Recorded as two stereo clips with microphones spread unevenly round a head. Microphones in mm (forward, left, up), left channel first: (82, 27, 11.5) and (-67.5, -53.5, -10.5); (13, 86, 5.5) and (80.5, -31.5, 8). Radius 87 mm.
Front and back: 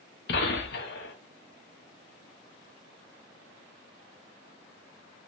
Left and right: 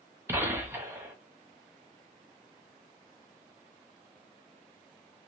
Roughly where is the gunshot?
Ahead.